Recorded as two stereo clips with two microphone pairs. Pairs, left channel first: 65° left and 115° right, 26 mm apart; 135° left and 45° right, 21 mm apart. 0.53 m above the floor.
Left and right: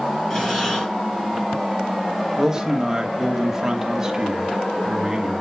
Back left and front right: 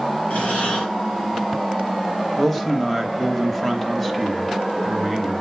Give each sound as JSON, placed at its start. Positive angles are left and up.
{"t": 0.3, "sound": "breathing", "azimuth_deg": 130, "distance_m": 5.0}
{"t": 2.4, "sound": "a man speaking", "azimuth_deg": -160, "distance_m": 0.9}